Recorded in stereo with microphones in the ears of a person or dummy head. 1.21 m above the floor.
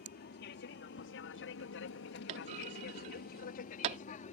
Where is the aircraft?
45° left (ahead or behind); by 4.3 s 35° left (ahead or behind).